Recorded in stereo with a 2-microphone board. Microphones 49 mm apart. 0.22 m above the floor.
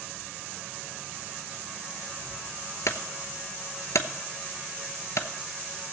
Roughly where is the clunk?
Left.